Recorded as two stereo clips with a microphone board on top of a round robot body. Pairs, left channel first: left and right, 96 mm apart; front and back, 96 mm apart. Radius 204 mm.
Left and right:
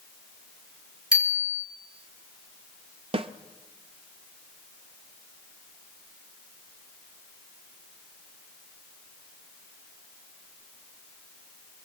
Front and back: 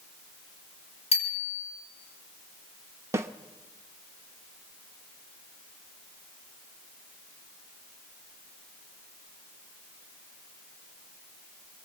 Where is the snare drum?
115° right, 0.7 m.